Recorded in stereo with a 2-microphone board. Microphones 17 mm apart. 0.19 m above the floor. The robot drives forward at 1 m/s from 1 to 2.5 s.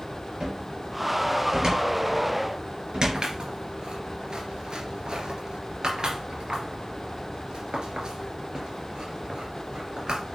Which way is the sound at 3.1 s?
55° right (ahead or behind).